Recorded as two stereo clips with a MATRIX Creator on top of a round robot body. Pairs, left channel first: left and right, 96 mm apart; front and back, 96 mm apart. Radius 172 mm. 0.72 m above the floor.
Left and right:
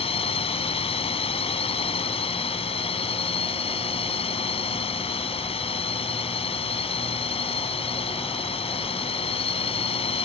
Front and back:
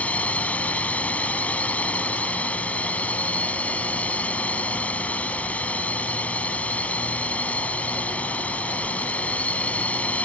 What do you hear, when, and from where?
0.0 s a drone: 75° left